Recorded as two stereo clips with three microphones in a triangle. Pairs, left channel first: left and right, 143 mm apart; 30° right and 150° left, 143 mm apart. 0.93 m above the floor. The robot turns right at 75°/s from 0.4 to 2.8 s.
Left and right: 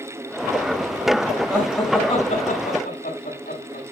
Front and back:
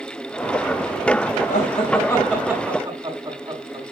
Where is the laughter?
15° right, 6.5 m; by 3.8 s 85° left, 6.5 m.